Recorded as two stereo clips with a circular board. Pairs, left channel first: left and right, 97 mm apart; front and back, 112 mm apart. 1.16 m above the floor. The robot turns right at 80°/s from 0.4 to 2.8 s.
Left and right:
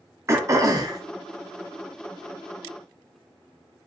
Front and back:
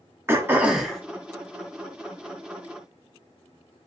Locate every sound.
0.3 s throat clearing: 125° right, 0.6 m; by 1.0 s 80° right, 0.6 m